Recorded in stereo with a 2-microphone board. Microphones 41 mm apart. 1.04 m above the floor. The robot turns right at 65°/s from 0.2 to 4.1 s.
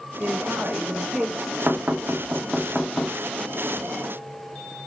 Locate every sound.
0.2 s a woman speaking: 85° right, 1.3 m; by 1.6 s straight ahead, 1.3 m
1.7 s knocking: 70° right (ahead or behind), 1.6 m; by 3.1 s 30° left (ahead or behind), 1.6 m